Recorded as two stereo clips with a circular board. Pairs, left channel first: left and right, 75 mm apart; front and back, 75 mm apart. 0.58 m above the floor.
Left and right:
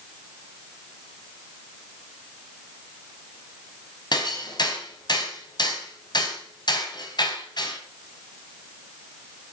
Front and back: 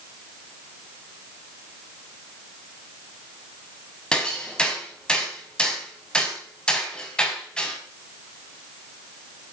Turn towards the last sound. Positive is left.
turn(degrees=80)